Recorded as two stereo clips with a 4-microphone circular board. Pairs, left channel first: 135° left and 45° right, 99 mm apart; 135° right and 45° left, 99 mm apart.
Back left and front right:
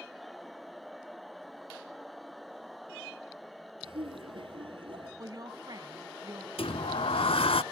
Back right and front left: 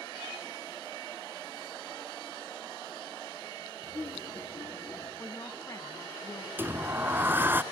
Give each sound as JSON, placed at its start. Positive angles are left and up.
{"t": 3.8, "sound": "laughter", "azimuth_deg": -75, "distance_m": 4.5}
{"t": 5.2, "sound": "a woman speaking", "azimuth_deg": -85, "distance_m": 2.5}
{"t": 6.6, "sound": "a sliding door", "azimuth_deg": 115, "distance_m": 0.6}